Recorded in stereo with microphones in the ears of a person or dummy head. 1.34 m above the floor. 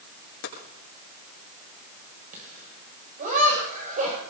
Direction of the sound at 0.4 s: 75° left (ahead or behind).